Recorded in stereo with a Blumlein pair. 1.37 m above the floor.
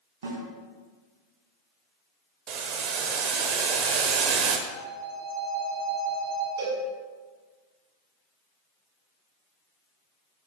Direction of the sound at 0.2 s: 65° right.